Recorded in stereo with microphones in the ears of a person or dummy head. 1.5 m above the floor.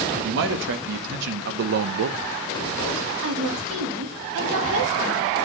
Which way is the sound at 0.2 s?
75° right (ahead or behind).